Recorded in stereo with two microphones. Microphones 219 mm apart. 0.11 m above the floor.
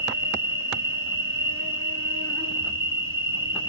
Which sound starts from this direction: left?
An insect, at 0.0 s.